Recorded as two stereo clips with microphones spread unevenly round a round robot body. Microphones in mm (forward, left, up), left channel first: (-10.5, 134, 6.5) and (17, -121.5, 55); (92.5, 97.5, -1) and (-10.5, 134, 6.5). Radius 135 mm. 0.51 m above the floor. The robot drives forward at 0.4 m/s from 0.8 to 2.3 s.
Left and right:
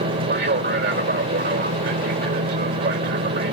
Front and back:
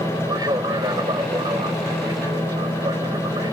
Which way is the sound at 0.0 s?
135° right.